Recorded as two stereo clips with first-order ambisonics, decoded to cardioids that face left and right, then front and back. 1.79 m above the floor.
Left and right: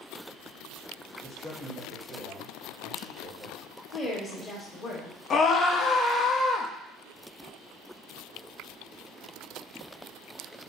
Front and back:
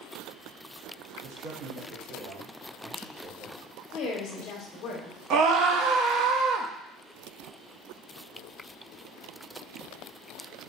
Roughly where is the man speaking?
Behind.